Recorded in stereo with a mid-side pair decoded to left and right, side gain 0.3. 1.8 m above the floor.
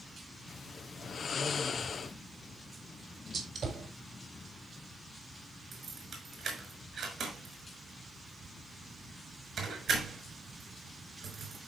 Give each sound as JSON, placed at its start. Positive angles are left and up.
{"t": 0.5, "sound": "snoring", "azimuth_deg": 70, "distance_m": 1.5}
{"t": 3.3, "sound": "a gunshot", "azimuth_deg": -65, "distance_m": 4.5}
{"t": 5.7, "sound": "keys jangling", "azimuth_deg": -70, "distance_m": 6.0}